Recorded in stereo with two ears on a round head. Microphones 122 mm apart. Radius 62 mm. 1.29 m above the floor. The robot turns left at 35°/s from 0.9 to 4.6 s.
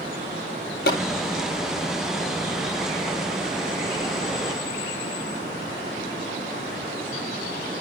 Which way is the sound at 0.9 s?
85° left.